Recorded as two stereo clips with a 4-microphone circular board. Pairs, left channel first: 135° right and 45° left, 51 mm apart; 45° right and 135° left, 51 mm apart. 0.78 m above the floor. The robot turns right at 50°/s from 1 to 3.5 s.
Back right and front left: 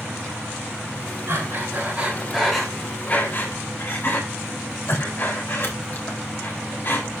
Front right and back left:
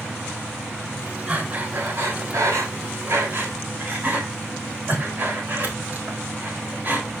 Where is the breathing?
75° left, 4 m; by 7.1 s 175° right, 4 m.